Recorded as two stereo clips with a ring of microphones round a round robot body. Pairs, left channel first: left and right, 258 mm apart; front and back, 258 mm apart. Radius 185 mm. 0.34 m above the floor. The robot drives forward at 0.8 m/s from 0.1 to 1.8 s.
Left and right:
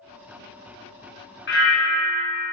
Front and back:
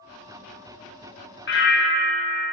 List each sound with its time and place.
1.5 s a bell: 45° left, 1.7 m; by 2.5 s 50° left, 1.5 m